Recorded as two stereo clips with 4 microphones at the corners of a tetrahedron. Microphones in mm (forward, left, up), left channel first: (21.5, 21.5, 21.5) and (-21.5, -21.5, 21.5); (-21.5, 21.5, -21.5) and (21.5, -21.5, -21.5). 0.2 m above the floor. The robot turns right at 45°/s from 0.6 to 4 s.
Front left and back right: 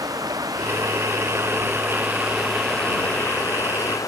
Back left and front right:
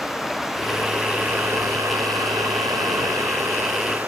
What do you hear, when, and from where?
0.0 s running water: 130° right; by 4.1 s 20° left